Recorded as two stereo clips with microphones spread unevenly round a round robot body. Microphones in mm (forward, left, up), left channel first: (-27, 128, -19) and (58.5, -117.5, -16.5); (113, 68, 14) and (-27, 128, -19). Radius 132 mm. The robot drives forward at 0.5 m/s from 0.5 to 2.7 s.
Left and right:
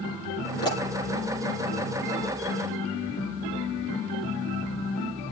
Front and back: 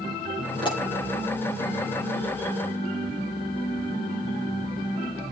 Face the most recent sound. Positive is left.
turn(degrees=40)